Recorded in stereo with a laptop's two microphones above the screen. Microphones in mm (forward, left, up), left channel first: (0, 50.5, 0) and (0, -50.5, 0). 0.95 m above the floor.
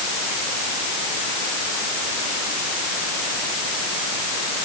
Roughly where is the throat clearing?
I don't hear throat clearing.